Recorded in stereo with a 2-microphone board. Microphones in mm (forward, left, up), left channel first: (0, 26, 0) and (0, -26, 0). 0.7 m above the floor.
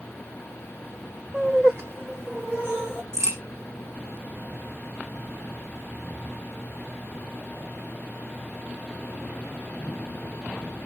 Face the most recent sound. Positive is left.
turn(degrees=-75)  # may be behind; listen again after turning